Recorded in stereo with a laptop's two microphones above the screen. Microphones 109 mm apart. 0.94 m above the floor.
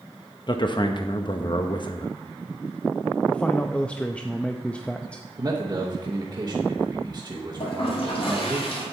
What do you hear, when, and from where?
0.5 s a man speaking: 45° left (ahead or behind), 0.8 m
3.3 s a man speaking: 10° left (ahead or behind), 0.6 m
5.4 s a man speaking: 35° right (ahead or behind), 1.0 m
7.6 s a toilet flushing: 60° left (ahead or behind), 2.5 m